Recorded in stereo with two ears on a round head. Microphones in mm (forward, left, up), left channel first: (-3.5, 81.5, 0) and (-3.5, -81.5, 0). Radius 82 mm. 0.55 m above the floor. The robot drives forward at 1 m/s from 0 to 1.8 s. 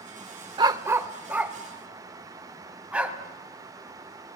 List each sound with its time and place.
0.6 s a dog barking: 25° right (ahead or behind), 0.5 m; by 3.2 s 5° right (ahead or behind), 1.7 m